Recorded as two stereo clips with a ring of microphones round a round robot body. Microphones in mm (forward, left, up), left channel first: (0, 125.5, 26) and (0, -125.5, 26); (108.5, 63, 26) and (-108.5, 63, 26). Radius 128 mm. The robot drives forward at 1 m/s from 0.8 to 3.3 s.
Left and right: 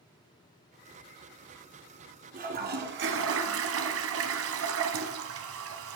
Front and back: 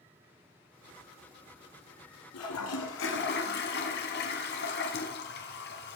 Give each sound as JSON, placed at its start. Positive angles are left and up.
{"t": 2.3, "sound": "a toilet flushing", "azimuth_deg": -30, "distance_m": 2.0}